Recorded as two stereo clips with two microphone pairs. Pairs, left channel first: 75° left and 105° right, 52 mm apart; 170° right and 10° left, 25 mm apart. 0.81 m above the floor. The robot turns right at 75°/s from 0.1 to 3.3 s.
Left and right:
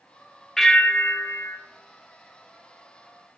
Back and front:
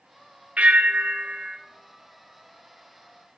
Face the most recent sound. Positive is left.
turn(degrees=-165)